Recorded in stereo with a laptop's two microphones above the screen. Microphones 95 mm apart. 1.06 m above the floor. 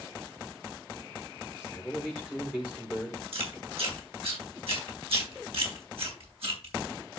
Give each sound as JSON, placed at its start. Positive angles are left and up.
{"t": 1.6, "sound": "a man speaking", "side_deg": -5, "distance_m": 4.5}
{"t": 3.3, "sound": "chewing", "side_deg": -75, "distance_m": 4.0}